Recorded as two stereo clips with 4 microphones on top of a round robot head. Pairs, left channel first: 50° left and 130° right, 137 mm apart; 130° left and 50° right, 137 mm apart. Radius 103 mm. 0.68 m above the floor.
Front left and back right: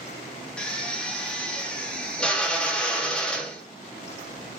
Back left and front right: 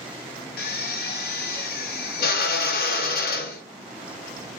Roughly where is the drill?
Behind left.